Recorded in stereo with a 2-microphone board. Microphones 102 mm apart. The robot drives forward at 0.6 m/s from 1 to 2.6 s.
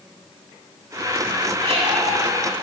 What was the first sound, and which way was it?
A squeak, 65° right (ahead or behind).